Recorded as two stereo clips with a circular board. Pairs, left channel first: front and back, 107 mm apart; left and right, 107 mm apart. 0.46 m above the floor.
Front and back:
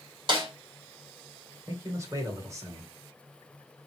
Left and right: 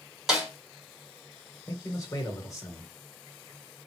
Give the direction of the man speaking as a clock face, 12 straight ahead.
8 o'clock.